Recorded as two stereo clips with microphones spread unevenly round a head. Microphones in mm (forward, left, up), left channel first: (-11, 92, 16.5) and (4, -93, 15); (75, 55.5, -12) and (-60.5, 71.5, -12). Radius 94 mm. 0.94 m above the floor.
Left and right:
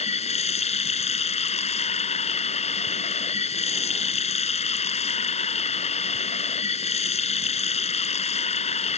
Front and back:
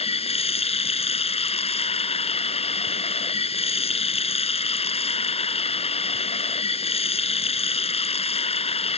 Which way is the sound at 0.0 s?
35° left.